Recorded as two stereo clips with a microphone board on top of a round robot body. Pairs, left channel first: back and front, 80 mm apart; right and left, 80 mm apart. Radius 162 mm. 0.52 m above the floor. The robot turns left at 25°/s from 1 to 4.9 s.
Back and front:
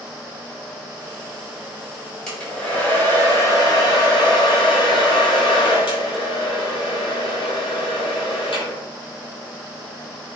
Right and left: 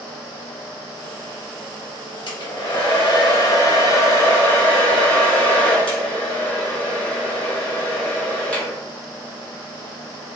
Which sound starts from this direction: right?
A hair dryer, at 2.3 s.